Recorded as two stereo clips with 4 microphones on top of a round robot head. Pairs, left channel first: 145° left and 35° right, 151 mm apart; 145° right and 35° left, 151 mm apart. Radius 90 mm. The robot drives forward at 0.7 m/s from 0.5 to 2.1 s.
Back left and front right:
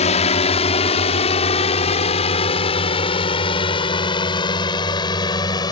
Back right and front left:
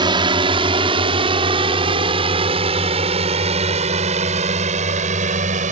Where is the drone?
95° left; by 5.7 s 80° left.